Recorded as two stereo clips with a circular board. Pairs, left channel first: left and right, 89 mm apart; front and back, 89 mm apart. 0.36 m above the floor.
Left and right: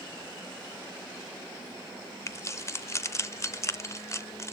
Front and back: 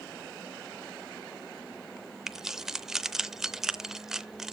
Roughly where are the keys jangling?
Left.